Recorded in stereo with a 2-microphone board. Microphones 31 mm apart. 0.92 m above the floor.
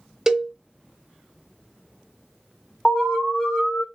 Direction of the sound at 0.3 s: 15° right (ahead or behind).